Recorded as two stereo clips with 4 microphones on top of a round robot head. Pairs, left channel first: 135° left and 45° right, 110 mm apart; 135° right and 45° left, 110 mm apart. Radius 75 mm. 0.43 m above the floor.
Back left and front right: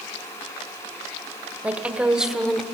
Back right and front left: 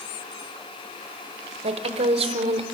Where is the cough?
I don't hear a cough.